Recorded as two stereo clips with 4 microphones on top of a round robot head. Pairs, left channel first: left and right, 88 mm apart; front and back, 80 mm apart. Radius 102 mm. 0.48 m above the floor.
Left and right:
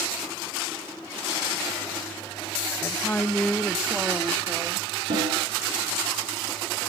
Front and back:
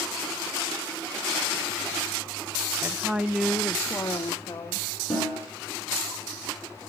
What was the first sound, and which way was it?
A woman speaking, 140° left.